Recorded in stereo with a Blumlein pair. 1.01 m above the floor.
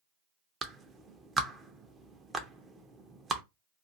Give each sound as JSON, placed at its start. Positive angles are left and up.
{"t": 0.6, "sound": "a clap", "azimuth_deg": -15, "distance_m": 0.6}